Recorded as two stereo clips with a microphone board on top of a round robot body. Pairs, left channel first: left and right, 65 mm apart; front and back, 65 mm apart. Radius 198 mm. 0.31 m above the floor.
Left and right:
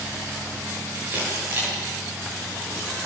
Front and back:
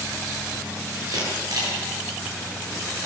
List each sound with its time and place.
1.1 s a camera shutter: 155° right, 10 m